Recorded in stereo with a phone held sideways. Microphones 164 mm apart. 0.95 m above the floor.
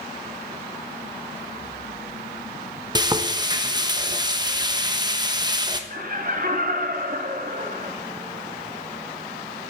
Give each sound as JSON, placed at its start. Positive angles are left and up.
{"t": 3.0, "sound": "frying", "side_deg": -25, "distance_m": 0.9}
{"t": 5.9, "sound": "laughter", "side_deg": -55, "distance_m": 2.0}